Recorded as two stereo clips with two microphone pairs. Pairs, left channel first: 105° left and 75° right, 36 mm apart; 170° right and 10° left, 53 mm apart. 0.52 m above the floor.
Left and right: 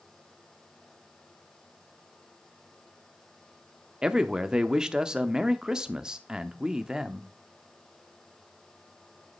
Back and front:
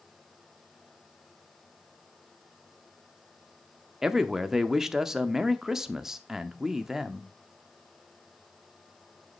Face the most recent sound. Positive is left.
turn(degrees=-55)